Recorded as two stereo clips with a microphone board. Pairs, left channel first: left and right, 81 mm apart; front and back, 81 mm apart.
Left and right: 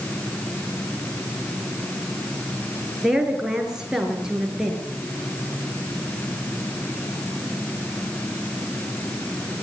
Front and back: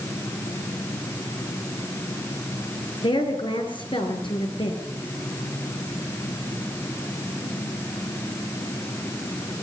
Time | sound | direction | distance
3.0 | a woman speaking | 10° right | 6 m